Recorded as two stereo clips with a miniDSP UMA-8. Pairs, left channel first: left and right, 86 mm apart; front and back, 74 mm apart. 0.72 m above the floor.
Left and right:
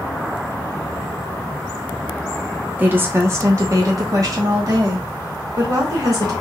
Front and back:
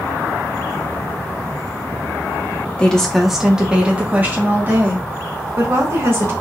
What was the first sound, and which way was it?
A woman speaking, 50° right.